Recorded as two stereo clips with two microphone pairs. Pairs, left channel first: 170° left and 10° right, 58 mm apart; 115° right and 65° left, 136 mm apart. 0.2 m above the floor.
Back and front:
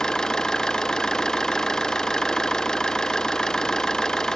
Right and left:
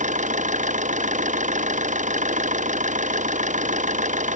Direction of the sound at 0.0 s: 90° left.